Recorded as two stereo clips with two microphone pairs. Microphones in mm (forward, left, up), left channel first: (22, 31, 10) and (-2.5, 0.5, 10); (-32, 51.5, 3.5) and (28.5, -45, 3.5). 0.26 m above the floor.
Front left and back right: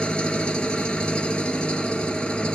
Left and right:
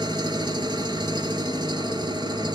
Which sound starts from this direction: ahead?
An engine running, at 0.0 s.